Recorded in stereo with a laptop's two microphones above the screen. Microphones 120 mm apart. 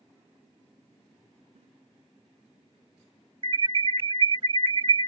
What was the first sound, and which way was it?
A giggle, 70° right (ahead or behind).